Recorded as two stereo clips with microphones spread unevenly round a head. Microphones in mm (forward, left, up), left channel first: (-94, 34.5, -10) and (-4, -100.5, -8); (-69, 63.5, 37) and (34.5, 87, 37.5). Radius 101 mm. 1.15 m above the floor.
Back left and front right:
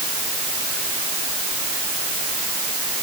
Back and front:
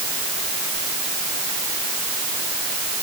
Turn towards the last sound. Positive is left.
No sound to turn to.